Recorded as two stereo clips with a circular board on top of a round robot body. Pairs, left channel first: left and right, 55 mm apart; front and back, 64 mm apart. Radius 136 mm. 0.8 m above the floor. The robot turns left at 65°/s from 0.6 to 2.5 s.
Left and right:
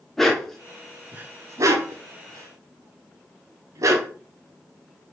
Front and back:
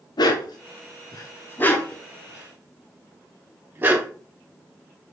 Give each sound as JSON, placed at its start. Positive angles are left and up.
{"t": 0.2, "sound": "a dog barking", "azimuth_deg": 5, "distance_m": 0.8}